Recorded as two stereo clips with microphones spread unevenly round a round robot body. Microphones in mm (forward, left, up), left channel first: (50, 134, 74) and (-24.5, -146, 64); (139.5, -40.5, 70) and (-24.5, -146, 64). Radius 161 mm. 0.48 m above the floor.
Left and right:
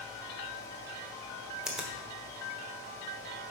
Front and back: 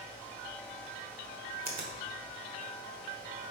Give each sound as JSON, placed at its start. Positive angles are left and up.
{"t": 1.6, "sound": "a finger snap", "azimuth_deg": 170, "distance_m": 1.3}